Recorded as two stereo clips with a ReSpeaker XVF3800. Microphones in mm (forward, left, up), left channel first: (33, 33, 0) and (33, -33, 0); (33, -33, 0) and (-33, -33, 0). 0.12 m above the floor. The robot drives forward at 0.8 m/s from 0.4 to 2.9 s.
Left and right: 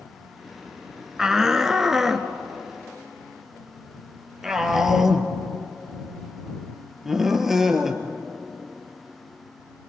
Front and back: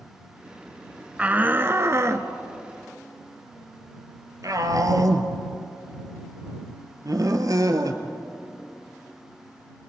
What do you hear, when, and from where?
1.2 s a shout: 155° right, 1.1 m; by 8.0 s 175° right, 2.0 m